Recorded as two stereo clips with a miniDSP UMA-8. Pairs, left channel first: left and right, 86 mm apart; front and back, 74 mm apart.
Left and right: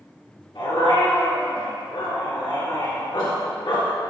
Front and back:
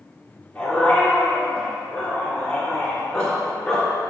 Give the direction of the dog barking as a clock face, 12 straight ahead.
9 o'clock.